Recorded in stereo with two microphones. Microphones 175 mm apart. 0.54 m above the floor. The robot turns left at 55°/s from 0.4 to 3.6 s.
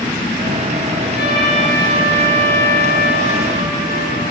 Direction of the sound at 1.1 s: 105° left.